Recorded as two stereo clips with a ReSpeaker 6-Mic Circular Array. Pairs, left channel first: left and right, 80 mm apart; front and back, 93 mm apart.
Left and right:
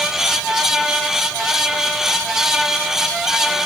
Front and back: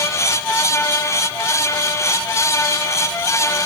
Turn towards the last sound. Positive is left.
No sound to turn to.